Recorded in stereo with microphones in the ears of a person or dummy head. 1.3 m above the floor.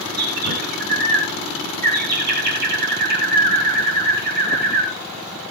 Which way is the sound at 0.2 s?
55° right (ahead or behind).